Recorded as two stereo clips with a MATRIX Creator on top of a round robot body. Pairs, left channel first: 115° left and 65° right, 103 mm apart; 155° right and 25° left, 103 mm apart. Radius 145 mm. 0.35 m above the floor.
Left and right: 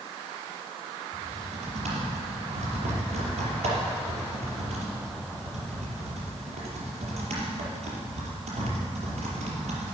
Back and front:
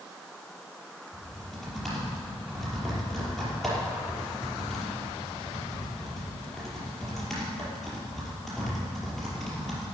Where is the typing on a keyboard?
70° right, 5 m.